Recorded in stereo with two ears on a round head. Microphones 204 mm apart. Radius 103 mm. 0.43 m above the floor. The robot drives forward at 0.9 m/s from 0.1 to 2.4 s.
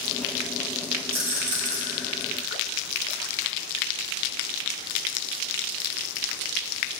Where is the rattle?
55° right (ahead or behind), 1.9 m; by 1.8 s 65° right (ahead or behind), 1.7 m.